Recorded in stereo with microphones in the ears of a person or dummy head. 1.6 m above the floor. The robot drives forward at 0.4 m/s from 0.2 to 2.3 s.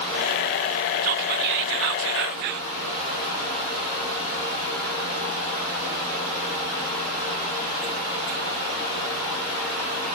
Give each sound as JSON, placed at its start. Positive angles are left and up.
{"t": 1.0, "sound": "whispering", "side_deg": -45, "distance_m": 0.6}